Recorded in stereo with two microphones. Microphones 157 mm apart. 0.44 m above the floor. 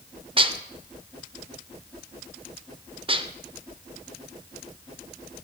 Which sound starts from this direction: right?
Dishes clattering, at 0.4 s.